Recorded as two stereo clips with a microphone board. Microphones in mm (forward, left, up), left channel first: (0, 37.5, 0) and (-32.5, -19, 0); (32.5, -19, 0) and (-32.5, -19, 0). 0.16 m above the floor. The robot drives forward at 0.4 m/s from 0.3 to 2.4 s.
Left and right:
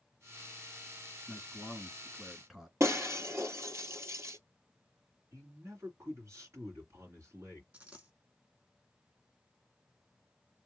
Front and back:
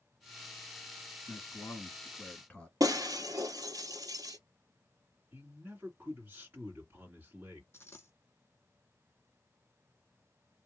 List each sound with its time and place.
1.3 s a man speaking: 30° right, 2.0 m; by 2.7 s 45° right, 1.8 m
2.8 s breaking glass: 165° right, 1.3 m
5.3 s a man speaking: 130° right, 2.5 m
7.7 s a dropped coin: 55° right, 1.3 m